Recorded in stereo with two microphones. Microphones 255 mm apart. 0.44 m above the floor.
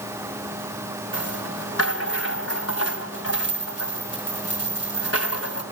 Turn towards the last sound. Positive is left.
turn(degrees=65)  # may be behind; listen again after turning